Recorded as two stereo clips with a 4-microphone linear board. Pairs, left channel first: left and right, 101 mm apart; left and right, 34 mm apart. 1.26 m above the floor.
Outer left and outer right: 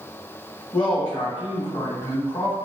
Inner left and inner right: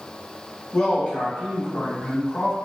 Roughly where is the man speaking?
Left.